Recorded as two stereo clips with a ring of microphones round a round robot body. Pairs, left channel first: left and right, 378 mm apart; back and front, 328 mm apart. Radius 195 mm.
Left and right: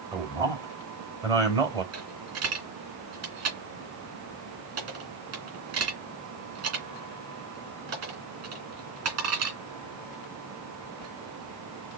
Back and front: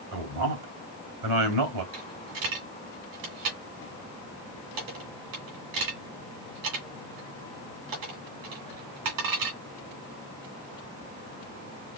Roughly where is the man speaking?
Ahead.